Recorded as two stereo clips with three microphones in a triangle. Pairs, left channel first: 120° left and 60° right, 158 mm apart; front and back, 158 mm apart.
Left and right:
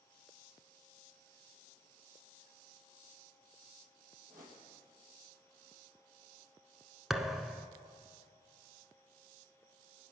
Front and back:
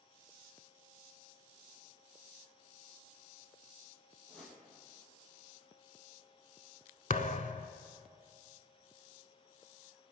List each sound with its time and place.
4.3 s a whoosh: 85° right, 4.5 m
7.1 s a thud: 25° left, 0.7 m